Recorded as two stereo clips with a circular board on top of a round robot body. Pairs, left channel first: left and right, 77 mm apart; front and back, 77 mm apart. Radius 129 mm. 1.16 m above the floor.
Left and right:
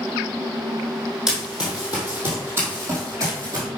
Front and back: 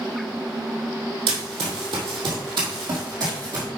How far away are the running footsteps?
About 2 m.